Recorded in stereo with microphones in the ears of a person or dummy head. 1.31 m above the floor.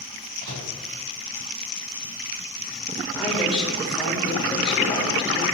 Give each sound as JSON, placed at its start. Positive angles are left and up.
{"t": 0.4, "sound": "a microwave", "side_deg": -60, "distance_m": 3.0}
{"t": 3.1, "sound": "a woman speaking", "side_deg": 0, "distance_m": 4.0}